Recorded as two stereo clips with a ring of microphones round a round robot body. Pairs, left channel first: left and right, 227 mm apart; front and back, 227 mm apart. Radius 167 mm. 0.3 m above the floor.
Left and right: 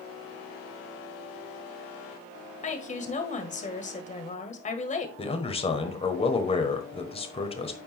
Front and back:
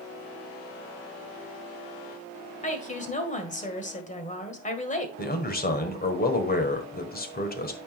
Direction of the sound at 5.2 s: 35° left.